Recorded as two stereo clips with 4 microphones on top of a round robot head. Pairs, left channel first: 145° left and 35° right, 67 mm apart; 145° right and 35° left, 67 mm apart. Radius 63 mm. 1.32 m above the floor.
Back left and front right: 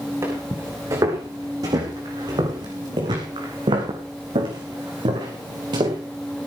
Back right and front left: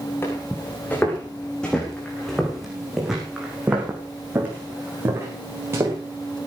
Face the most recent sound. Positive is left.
turn(degrees=-20)